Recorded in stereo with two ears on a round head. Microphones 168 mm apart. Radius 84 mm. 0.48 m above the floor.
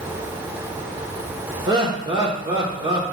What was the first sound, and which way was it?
Laughter, 25° right (ahead or behind).